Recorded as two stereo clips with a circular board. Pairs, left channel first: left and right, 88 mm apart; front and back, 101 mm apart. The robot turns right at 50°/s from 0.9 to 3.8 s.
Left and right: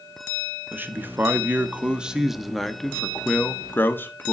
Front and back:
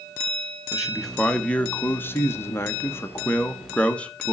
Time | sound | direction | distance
0.7 | a man speaking | 85° right | 0.8 m